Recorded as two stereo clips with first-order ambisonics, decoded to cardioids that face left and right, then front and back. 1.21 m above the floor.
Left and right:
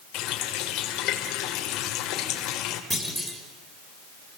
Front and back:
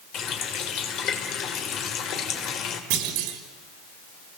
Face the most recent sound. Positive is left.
turn(degrees=-175)